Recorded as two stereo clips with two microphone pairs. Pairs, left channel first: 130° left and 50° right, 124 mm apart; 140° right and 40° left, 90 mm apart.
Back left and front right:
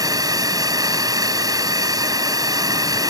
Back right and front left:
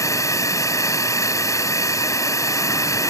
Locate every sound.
0.0 s a drone: 100° right